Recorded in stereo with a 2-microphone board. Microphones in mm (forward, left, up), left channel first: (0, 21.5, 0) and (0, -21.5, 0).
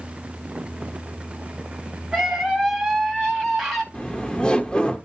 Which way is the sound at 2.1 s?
Centre (ahead or behind).